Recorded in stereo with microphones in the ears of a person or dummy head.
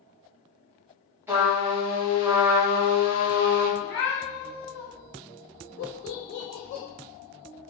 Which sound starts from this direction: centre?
A trumpet, at 1.3 s.